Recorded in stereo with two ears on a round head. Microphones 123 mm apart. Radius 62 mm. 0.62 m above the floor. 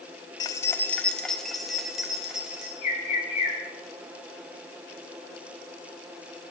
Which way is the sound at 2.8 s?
55° left (ahead or behind).